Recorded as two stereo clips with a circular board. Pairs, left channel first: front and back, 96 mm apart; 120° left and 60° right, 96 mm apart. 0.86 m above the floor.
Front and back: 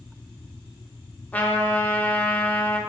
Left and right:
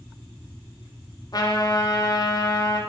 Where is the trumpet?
70° left, 0.8 m.